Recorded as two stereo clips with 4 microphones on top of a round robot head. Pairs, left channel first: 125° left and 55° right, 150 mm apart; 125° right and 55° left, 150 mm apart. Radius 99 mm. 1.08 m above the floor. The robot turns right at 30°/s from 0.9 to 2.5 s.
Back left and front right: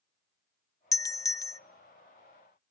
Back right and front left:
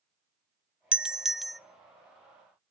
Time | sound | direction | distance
0.9 | a doorbell | 125° left | 0.5 m